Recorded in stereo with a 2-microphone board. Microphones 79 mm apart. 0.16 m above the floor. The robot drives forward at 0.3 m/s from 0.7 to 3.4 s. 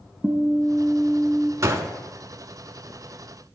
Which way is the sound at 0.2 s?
20° right (ahead or behind).